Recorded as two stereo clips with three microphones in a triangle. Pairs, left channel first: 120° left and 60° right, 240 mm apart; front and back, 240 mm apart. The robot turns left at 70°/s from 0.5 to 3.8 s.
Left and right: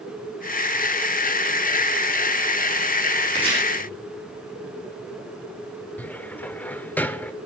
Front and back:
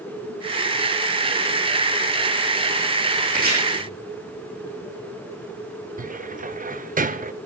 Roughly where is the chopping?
Behind right.